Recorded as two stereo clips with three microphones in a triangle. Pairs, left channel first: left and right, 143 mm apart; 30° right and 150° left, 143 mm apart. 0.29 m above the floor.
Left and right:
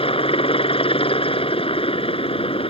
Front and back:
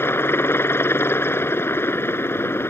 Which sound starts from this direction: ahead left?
A helicopter, at 0.0 s.